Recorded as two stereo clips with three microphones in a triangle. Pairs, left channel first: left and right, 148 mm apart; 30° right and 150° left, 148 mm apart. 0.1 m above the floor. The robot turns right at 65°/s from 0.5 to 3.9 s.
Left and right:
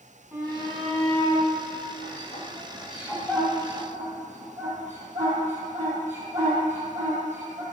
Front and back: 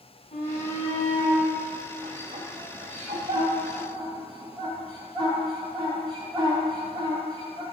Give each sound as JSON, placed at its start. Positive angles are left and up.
{"t": 0.3, "sound": "a shout", "azimuth_deg": -10, "distance_m": 2.5}